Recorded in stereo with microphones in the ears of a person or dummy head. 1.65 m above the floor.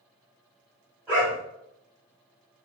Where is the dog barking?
10° right (ahead or behind), 1.9 m.